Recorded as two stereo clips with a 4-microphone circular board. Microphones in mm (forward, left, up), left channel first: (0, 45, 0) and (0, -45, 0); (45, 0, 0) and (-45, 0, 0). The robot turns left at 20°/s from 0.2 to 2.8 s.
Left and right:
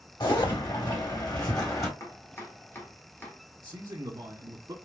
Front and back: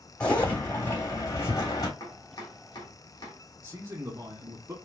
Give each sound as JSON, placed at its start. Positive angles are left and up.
{"t": 0.2, "sound": "a zipper", "azimuth_deg": 75, "distance_m": 2.5}
{"t": 2.0, "sound": "chopping", "azimuth_deg": 40, "distance_m": 1.5}
{"t": 3.6, "sound": "a man speaking", "azimuth_deg": -135, "distance_m": 1.3}